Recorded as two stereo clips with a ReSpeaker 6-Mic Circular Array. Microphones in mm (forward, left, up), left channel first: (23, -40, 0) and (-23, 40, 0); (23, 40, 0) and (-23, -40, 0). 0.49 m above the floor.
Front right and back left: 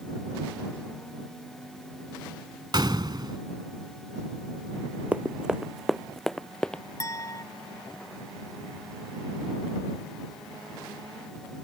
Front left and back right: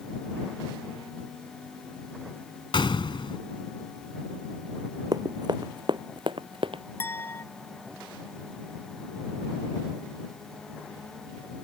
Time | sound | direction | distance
2.7 | a gunshot | 85° left | ?
5.1 | running footsteps | 165° right | ?
7.0 | a clink | 5° right | ?